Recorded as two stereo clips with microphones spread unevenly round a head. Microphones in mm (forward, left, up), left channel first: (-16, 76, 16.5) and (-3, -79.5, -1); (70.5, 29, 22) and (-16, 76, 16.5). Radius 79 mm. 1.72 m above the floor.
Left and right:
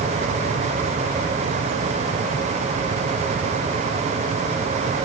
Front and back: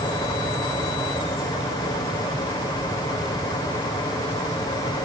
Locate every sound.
Only background noise.